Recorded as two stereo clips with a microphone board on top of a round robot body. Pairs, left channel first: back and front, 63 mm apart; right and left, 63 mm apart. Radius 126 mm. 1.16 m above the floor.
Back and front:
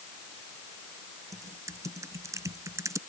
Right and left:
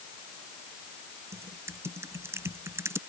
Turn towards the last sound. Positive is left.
turn(degrees=40)